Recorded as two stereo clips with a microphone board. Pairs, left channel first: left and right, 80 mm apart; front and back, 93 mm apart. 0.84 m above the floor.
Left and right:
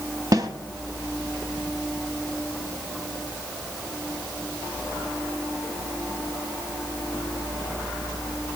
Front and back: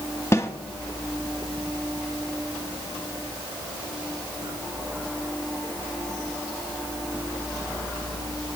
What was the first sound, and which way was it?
A snare drum, 60° right.